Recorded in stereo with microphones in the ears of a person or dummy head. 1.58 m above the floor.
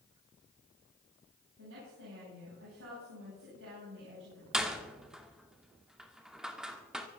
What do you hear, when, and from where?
1.6 s a woman speaking: 70° right (ahead or behind), 9.5 m
4.5 s a door slam: centre (ahead or behind), 2 m